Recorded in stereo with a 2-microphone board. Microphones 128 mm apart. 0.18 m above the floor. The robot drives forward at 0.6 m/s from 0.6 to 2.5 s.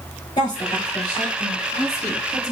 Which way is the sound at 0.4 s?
35° left (ahead or behind).